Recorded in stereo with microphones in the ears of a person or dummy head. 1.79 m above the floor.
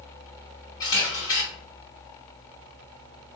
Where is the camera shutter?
25° left (ahead or behind), 2.0 m.